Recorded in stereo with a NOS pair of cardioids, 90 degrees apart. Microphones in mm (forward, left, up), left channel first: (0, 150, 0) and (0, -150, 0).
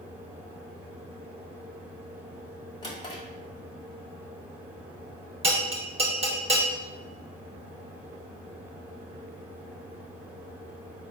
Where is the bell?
20° right, 1.2 m.